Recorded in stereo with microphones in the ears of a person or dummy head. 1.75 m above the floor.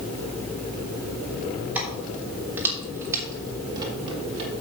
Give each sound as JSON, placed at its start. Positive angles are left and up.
{"t": 1.8, "sound": "keys jangling", "side_deg": -10, "distance_m": 3.5}